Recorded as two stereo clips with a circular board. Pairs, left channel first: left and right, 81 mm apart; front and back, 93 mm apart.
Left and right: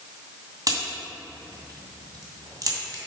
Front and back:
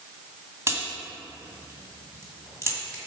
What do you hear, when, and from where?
0.7 s a crack: 125° right, 2 m